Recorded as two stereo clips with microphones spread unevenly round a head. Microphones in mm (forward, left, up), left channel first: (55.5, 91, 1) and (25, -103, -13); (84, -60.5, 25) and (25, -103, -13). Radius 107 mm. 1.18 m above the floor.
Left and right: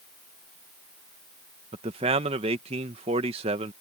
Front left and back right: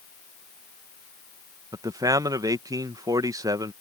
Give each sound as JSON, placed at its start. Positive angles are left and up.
{"t": 1.7, "sound": "a man speaking", "azimuth_deg": -160}